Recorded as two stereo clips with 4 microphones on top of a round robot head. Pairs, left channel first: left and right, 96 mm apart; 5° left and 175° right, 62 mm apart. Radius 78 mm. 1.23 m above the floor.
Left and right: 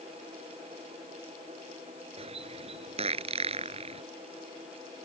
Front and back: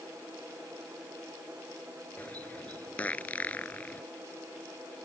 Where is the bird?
70° right.